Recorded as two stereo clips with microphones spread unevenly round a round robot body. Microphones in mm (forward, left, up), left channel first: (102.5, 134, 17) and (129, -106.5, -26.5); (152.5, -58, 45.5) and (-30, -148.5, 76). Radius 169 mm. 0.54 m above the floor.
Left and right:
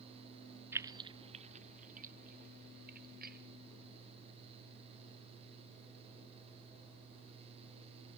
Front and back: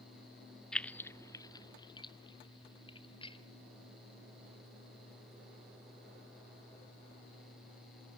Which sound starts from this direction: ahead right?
Keys jangling, at 0.7 s.